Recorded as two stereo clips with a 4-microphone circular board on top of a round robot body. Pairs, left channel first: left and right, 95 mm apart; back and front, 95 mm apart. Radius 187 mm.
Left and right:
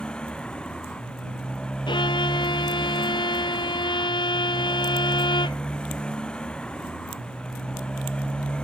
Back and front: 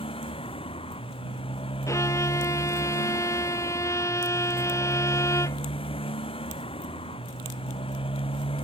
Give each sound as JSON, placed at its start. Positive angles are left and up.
{"t": 0.0, "sound": "a motorcycle", "azimuth_deg": 170}
{"t": 1.9, "sound": "a violin", "azimuth_deg": 125}